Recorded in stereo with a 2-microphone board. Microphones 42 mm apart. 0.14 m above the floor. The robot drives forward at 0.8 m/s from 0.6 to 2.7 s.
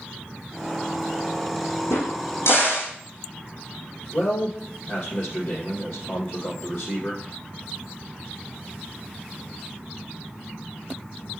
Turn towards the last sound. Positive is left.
turn(degrees=60)  # may be behind; listen again after turning